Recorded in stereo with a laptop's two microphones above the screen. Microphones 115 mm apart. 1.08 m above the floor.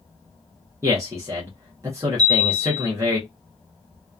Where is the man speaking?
25° right (ahead or behind), 0.8 m.